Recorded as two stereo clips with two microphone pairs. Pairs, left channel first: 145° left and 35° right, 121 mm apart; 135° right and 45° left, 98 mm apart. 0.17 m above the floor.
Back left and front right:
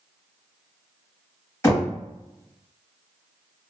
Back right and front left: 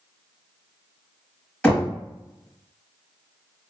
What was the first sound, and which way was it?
Knocking, 165° left.